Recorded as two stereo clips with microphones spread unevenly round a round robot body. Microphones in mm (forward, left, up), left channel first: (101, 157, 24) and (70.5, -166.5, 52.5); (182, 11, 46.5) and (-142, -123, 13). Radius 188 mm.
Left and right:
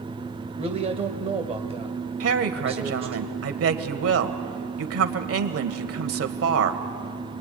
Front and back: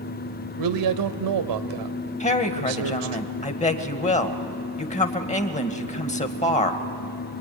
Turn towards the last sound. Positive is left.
turn(degrees=-50)